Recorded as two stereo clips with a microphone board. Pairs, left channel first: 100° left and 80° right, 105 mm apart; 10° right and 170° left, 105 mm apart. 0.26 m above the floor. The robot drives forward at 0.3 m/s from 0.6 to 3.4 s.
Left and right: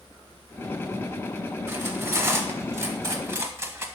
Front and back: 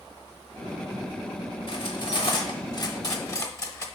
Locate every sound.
1.7 s cutlery clinking: 20° right, 1.0 m; by 3.9 s 50° right, 0.7 m